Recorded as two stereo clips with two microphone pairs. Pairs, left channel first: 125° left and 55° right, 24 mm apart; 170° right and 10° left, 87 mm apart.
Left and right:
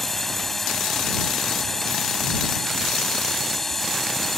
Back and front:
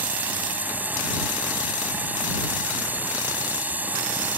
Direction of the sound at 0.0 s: 55° left.